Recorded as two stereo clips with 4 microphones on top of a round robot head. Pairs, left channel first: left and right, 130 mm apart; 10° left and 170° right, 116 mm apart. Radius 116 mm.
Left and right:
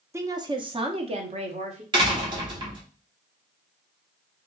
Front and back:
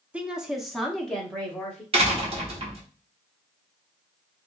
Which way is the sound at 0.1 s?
105° right.